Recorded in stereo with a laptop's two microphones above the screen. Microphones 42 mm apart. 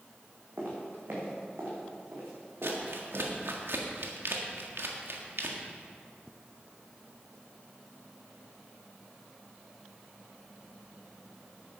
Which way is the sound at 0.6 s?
50° right (ahead or behind).